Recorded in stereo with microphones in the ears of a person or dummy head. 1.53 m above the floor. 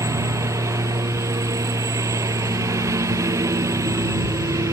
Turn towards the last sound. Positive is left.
turn(degrees=-20)  # may be behind; listen again after turning